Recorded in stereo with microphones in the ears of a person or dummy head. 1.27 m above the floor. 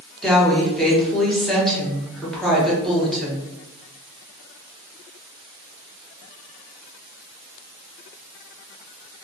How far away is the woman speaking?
About 0.9 m.